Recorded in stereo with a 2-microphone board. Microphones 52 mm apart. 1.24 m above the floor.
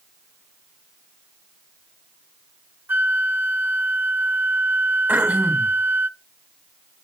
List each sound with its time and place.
2.9 s a flute: 40° right (ahead or behind), 0.7 m
5.1 s throat clearing: 30° right (ahead or behind), 2.5 m